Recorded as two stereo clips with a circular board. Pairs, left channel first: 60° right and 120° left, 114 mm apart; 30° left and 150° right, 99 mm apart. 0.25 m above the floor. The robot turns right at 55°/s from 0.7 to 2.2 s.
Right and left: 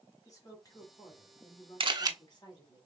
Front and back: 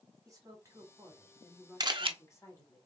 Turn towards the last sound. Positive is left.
turn(degrees=-175)